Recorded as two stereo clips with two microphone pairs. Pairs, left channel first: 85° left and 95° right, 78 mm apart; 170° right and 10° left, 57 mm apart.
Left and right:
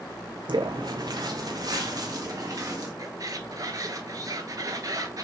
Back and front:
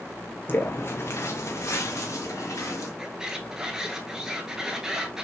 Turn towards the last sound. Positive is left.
turn(degrees=-70)